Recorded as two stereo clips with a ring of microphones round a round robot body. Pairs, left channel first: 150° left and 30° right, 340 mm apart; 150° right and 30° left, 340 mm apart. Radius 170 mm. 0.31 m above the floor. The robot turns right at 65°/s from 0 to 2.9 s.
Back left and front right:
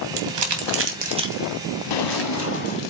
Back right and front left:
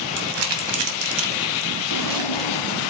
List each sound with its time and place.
0.2 s crumpling: 25° right, 2.5 m; by 2.9 s 150° left, 2.5 m
1.9 s a drawer: 165° left, 0.9 m; by 2.8 s 135° right, 0.9 m